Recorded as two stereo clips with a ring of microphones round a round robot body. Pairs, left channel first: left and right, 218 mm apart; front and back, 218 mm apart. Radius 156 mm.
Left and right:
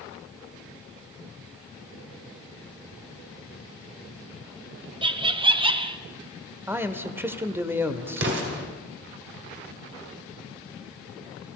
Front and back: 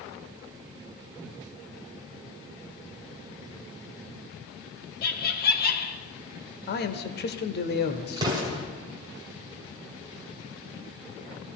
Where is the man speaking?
15° right, 1.0 m.